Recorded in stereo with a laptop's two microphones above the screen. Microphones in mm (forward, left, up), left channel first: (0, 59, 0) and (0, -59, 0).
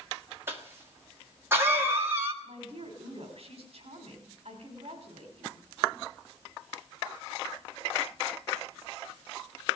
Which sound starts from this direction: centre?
A cough, at 0.5 s.